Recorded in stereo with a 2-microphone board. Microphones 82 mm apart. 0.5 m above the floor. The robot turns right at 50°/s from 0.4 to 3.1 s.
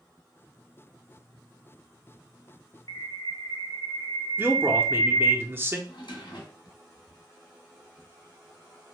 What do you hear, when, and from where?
2.9 s a bird: 60° left (ahead or behind), 0.5 m; by 5.4 s 70° left (ahead or behind), 0.5 m
4.4 s a man speaking: 30° right (ahead or behind), 0.7 m
5.9 s a drawer: 80° left, 1.6 m